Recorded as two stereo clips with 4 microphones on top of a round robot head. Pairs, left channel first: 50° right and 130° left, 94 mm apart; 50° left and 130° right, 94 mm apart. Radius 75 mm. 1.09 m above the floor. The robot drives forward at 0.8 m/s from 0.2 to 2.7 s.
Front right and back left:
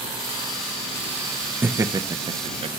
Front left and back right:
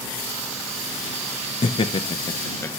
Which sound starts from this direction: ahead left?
Laughter, at 1.6 s.